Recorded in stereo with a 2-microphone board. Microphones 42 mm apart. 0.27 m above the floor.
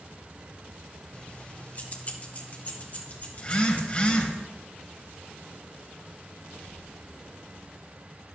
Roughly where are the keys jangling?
Left.